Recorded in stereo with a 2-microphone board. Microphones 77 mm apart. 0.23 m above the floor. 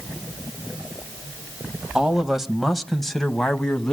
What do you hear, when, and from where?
1.9 s a man speaking: 10° right (ahead or behind), 1.0 m; by 3.9 s 10° left (ahead or behind), 1.5 m